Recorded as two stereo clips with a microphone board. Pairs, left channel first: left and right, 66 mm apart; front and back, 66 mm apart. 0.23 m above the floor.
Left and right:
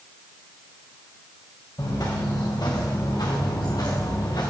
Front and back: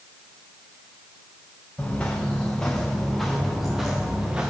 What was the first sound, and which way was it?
Footsteps, 70° left.